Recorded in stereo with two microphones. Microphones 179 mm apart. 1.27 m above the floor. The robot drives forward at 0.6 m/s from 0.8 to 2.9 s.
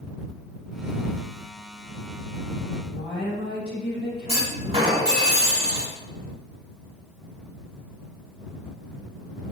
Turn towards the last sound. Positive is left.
turn(degrees=-35)  # may be behind; listen again after turning